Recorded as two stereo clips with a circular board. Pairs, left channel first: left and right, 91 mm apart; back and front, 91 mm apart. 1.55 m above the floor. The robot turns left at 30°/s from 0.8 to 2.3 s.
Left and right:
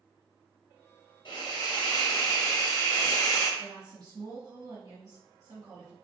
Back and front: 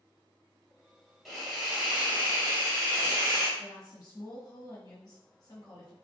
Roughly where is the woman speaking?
Behind right.